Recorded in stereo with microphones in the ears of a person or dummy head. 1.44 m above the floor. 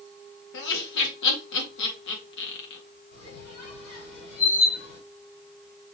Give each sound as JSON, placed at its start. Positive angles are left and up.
{"t": 0.5, "sound": "laughter", "side_deg": 70, "distance_m": 1.8}
{"t": 3.1, "sound": "a squeak", "side_deg": 80, "distance_m": 4.0}